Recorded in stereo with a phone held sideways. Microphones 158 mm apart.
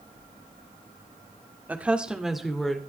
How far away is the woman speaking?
About 1.8 m.